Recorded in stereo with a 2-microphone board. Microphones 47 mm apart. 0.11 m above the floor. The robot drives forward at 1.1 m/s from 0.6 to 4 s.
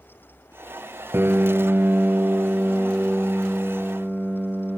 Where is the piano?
50° right (ahead or behind), 1.2 m; by 4.8 s 15° right (ahead or behind), 3 m.